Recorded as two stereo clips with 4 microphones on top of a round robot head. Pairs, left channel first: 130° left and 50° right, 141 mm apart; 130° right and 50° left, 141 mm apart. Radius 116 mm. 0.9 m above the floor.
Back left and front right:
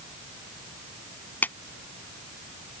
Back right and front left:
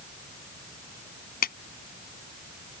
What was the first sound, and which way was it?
A clap, 150° right.